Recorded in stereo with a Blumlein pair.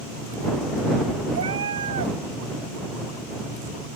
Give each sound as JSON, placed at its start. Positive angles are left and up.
{"t": 1.4, "sound": "a cat meowing", "azimuth_deg": -70}